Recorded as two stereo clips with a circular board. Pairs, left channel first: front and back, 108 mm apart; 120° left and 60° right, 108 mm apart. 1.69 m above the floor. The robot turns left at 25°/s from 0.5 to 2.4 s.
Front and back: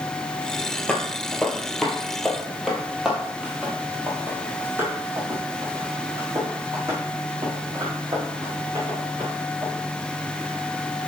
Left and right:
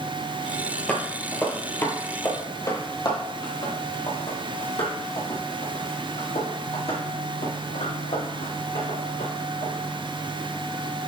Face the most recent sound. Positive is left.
turn(degrees=125)